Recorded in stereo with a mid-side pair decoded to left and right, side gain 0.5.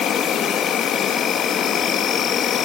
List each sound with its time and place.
0.0 s an insect: 60° left, 2.5 m